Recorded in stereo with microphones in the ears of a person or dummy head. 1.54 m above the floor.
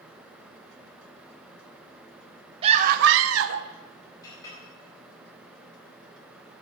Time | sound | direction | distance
2.6 | a scream | 35° right (ahead or behind) | 0.7 m
4.2 | a clink | 25° left (ahead or behind) | 4.5 m